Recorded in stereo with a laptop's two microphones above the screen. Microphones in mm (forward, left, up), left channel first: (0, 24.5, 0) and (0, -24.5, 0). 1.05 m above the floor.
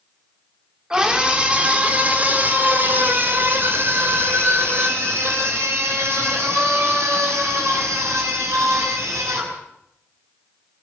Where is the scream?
15° right (ahead or behind), 2.5 m; by 9.6 s 70° right (ahead or behind), 7.5 m.